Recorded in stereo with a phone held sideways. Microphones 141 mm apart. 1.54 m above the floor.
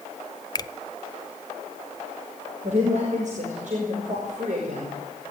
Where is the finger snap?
30° left (ahead or behind), 0.6 m.